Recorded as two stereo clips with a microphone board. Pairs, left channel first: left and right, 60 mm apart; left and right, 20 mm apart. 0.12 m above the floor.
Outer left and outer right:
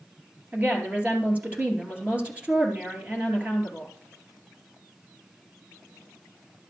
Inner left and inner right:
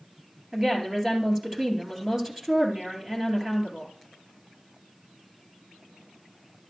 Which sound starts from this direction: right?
A woman speaking, at 0.5 s.